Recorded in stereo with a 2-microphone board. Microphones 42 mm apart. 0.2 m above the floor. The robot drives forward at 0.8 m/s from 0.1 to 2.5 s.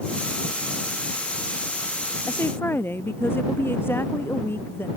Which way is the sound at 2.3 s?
65° left (ahead or behind).